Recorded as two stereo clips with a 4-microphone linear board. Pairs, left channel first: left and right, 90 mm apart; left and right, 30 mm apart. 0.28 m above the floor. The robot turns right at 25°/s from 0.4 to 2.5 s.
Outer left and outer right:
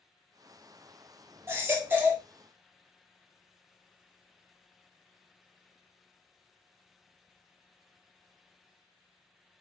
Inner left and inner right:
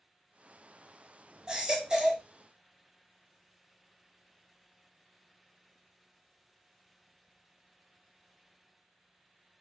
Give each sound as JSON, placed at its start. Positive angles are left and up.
{"t": 1.5, "sound": "a baby crying", "side_deg": -25, "distance_m": 0.7}